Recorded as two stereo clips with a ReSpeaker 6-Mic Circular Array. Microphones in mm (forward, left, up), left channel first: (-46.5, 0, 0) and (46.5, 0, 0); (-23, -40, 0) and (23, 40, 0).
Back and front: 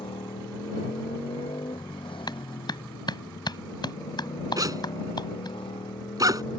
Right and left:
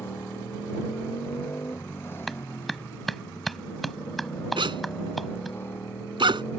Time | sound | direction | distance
0.0 | a motorcycle | 175° left | ?
2.3 | a clap | 150° left | ?
4.6 | a zipper | 45° left | ?